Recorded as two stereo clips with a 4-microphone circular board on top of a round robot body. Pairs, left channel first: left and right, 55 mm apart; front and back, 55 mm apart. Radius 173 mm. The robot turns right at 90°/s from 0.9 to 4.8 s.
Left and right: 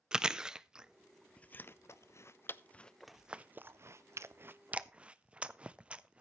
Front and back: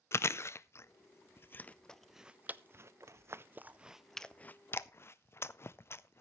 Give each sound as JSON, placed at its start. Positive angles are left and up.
{"t": 0.1, "sound": "chewing", "azimuth_deg": -15, "distance_m": 0.7}